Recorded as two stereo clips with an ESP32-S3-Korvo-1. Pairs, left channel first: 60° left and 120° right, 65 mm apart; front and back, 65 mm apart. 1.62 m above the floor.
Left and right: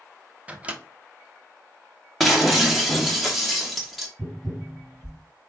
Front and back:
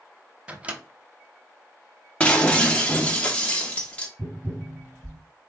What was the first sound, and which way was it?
A microwave, 150° right.